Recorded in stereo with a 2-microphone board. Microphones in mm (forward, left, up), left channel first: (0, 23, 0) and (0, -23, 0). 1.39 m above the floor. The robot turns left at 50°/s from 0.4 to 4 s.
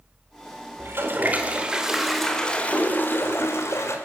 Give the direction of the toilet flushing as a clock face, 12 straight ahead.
4 o'clock.